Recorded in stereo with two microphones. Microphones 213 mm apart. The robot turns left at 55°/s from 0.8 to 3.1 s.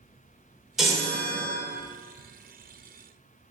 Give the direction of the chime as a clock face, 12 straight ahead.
6 o'clock.